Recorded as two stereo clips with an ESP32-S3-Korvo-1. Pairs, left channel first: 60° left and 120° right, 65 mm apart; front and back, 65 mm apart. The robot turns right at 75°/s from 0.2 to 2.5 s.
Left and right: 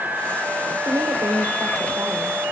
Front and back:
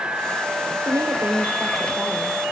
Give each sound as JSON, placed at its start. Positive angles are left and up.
{"t": 0.8, "sound": "a woman speaking", "azimuth_deg": -155, "distance_m": 4.5}